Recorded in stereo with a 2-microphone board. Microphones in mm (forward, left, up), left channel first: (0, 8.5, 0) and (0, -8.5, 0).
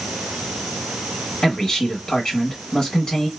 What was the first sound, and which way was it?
A man speaking, 35° left (ahead or behind).